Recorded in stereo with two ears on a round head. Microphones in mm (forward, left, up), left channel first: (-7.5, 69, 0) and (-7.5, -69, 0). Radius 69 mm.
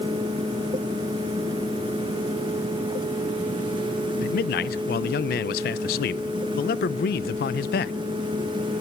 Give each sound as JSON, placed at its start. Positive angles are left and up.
{"t": 4.2, "sound": "a man speaking", "side_deg": 65, "distance_m": 0.7}